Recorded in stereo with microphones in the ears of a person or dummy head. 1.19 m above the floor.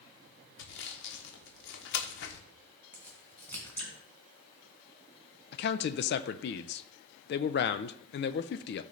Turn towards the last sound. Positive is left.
turn(degrees=50)  # may be behind; listen again after turning